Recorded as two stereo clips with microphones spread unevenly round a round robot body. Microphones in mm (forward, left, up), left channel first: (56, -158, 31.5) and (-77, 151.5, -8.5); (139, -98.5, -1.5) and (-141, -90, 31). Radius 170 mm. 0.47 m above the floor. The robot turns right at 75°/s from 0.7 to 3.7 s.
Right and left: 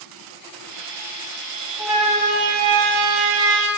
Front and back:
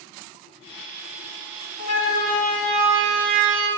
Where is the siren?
25° left, 3.5 m; by 3.7 s 150° left, 5 m.